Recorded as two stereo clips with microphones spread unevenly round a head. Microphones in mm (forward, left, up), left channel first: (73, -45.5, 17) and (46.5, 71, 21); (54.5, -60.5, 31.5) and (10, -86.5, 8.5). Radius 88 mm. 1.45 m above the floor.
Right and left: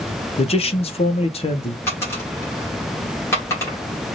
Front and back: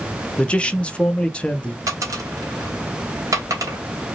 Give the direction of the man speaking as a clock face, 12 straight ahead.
1 o'clock.